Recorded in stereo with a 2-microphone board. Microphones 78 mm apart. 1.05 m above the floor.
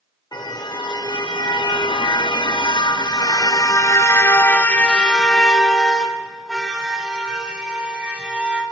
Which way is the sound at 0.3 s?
65° left (ahead or behind).